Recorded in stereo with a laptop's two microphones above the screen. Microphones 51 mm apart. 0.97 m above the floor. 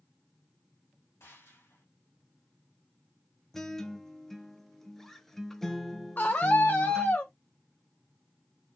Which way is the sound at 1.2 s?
60° left (ahead or behind).